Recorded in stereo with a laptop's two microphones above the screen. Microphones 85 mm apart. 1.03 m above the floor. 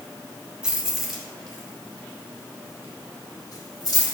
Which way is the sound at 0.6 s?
10° right (ahead or behind).